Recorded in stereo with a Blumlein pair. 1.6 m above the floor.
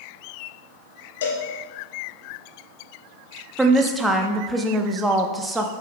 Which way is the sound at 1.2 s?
60° left.